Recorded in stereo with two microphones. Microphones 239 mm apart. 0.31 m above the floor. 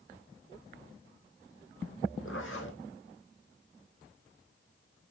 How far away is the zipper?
About 2.5 m.